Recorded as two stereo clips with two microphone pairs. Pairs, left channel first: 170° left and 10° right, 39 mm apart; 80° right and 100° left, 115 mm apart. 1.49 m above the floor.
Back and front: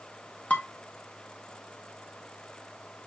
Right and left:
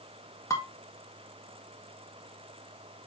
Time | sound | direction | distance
0.5 | dishes clattering | 140° right | 1.5 m